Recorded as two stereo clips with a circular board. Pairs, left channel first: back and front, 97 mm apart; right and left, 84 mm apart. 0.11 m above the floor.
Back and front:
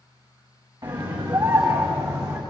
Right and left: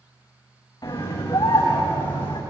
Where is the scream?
45° right, 8 m; by 2.4 s 55° right, 6.5 m.